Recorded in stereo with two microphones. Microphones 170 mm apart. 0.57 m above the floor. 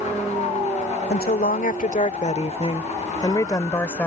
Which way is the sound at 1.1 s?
65° left (ahead or behind).